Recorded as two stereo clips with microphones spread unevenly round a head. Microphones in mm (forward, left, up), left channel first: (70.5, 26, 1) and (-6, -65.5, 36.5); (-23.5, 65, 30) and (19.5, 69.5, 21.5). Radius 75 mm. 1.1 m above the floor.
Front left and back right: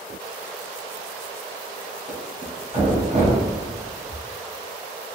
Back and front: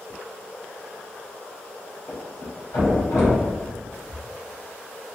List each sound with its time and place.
2.1 s a thud: 170° right, 1.1 m